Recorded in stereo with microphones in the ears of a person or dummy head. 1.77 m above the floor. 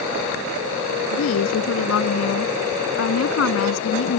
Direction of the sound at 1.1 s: 85° left.